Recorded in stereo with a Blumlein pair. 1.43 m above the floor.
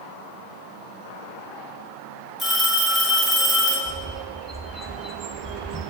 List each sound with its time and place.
2.4 s a phone ringing: 15° left, 2 m
3.9 s a bird: 5° right, 0.9 m